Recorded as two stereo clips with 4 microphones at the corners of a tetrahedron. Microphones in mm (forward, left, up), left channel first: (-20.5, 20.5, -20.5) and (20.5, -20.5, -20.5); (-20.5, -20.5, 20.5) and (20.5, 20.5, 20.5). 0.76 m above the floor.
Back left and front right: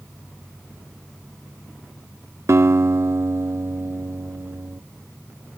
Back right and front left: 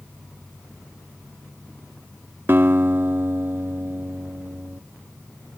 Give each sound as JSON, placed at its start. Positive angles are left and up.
{"t": 2.5, "sound": "a guitar", "azimuth_deg": -5}